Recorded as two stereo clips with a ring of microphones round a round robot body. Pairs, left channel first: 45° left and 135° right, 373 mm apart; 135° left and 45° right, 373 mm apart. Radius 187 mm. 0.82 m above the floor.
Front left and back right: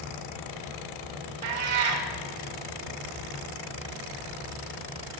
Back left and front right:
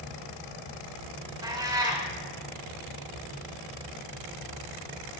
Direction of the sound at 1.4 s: 125° right.